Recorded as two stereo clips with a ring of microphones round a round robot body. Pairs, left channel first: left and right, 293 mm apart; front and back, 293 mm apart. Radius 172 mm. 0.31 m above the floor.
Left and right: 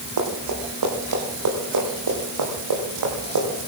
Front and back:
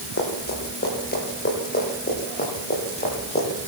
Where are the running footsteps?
60° right, 7 m; by 3.5 s 70° right, 8.5 m.